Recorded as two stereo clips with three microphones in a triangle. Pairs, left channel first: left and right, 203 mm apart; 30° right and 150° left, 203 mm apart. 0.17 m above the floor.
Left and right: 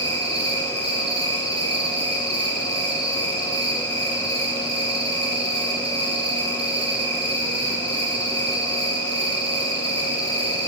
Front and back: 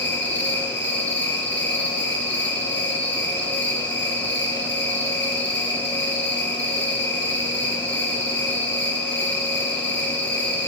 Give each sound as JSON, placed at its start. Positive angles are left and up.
{"t": 0.0, "sound": "an insect", "azimuth_deg": -30, "distance_m": 4.0}